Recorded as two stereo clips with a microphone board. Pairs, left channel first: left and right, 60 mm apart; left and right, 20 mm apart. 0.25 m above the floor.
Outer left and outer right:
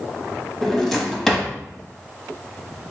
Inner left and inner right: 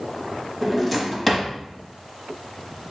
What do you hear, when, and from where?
0.6 s a drawer: centre (ahead or behind), 0.7 m